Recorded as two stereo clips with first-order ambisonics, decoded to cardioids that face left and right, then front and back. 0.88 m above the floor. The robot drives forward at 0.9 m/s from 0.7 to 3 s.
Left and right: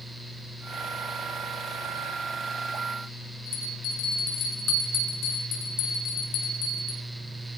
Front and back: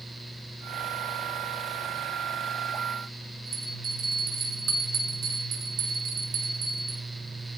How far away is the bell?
About 5.5 m.